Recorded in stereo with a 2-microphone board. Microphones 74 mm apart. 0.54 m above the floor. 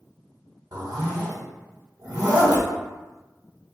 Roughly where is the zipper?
Right.